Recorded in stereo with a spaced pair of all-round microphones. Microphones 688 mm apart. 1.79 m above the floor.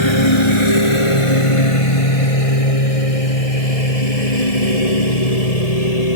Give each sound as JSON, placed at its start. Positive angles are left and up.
{"t": 0.0, "sound": "a lawn mower", "side_deg": 40}